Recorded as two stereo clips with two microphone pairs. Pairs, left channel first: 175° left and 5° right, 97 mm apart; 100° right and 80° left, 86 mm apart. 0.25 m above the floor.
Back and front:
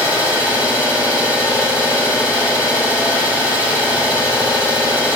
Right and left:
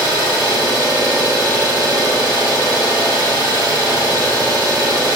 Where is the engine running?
120° left, 4.5 m.